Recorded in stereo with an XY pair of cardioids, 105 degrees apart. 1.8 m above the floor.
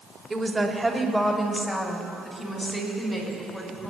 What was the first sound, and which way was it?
A woman speaking, 25° right.